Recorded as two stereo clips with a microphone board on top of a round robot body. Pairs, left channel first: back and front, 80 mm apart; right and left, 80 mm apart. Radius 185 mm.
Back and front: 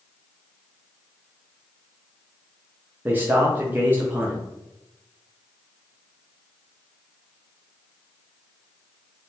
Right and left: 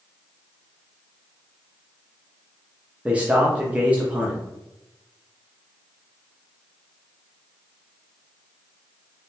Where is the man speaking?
35° left, 1.1 m.